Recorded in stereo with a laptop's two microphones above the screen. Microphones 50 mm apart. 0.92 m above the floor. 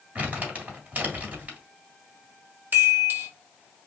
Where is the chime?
45° right (ahead or behind), 1.3 m.